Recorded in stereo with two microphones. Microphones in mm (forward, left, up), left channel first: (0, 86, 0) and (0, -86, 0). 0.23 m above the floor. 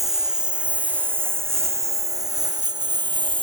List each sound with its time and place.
0.0 s a lawn mower: centre (ahead or behind); by 3.4 s 30° right (ahead or behind)